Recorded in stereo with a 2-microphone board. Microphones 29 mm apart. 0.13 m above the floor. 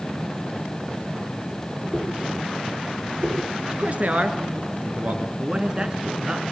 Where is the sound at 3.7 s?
40° right (ahead or behind), 2 m.